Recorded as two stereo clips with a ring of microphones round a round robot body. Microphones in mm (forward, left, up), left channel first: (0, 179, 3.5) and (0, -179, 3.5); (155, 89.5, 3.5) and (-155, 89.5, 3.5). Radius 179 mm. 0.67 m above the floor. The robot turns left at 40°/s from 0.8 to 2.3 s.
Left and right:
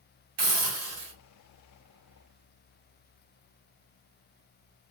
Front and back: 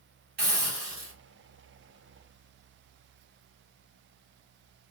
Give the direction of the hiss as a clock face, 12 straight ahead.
4 o'clock.